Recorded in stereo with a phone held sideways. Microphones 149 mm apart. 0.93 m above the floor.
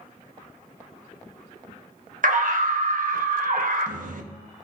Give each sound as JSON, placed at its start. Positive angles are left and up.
{"t": 2.2, "sound": "a scream", "side_deg": -65, "distance_m": 1.4}